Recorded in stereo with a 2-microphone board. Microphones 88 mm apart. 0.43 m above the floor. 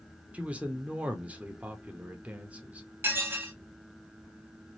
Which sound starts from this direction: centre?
A man speaking, at 0.3 s.